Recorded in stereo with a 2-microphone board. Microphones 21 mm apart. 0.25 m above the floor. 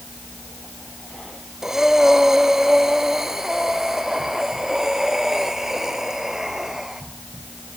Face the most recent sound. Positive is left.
turn(degrees=-20)  # may be behind; listen again after turning